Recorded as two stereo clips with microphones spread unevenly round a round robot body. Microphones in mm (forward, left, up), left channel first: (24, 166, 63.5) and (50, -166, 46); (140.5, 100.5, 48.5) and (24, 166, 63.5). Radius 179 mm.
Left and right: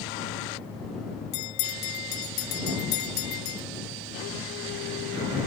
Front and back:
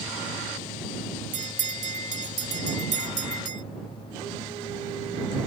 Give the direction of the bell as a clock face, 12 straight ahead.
8 o'clock.